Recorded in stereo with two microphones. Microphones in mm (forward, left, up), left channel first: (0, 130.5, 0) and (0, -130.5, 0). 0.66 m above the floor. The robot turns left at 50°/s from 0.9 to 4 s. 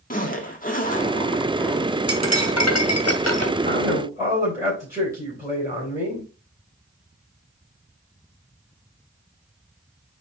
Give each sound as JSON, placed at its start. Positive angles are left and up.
{"t": 0.1, "sound": "a zipper", "azimuth_deg": 40, "distance_m": 1.4}
{"t": 2.1, "sound": "cutlery clinking", "azimuth_deg": 115, "distance_m": 1.7}
{"t": 3.6, "sound": "a man speaking", "side_deg": -30, "distance_m": 4.0}